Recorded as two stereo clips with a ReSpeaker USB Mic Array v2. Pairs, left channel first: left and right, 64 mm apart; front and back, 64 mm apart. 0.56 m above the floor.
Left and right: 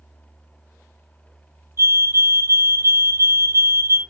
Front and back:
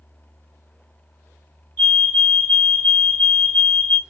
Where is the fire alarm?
60° right, 3 m.